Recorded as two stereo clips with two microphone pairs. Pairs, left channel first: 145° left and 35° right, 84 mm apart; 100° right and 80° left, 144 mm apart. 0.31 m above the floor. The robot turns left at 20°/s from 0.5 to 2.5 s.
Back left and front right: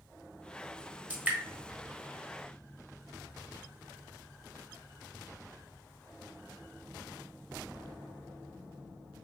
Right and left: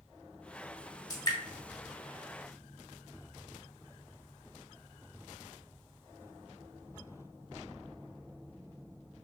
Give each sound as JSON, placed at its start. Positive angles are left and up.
{"t": 1.1, "sound": "dripping", "azimuth_deg": -80, "distance_m": 1.0}